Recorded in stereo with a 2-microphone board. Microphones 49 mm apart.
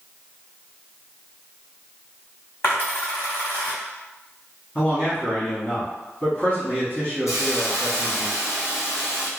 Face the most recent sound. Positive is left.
turn(degrees=80)